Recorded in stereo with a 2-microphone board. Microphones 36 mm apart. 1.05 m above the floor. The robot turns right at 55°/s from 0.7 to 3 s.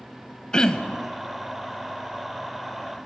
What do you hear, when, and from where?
0.5 s throat clearing: 25° left (ahead or behind), 0.9 m